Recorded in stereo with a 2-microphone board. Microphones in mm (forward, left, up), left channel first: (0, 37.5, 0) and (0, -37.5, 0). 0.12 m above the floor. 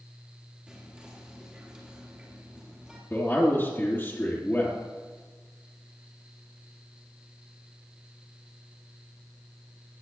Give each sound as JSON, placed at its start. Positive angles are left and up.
{"t": 0.7, "sound": "whispering", "side_deg": -15, "distance_m": 2.5}
{"t": 3.1, "sound": "a man speaking", "side_deg": 30, "distance_m": 2.0}